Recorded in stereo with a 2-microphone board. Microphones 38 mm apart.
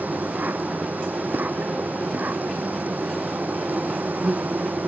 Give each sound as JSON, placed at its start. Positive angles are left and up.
{"t": 0.0, "sound": "an insect", "side_deg": -50}